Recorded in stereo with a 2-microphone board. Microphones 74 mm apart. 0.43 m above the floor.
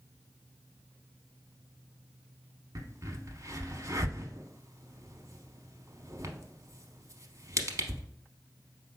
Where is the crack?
45° right (ahead or behind), 0.6 m.